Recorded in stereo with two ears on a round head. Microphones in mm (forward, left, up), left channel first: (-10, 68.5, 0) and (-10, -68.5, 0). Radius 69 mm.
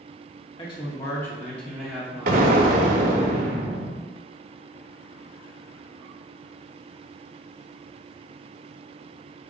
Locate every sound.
0.6 s a man speaking: 35° left (ahead or behind), 1.2 m; by 3.3 s 30° right (ahead or behind), 1.5 m
2.3 s an explosion: 50° right (ahead or behind), 0.6 m